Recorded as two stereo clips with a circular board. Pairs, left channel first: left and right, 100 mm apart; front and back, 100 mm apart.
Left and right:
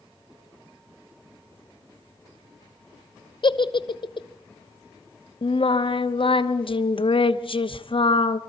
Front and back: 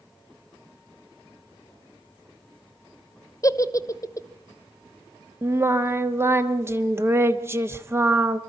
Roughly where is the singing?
Behind left.